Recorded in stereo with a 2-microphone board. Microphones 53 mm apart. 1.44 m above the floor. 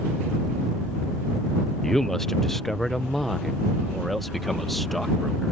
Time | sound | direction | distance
1.8 | a man speaking | 10° left (ahead or behind) | ?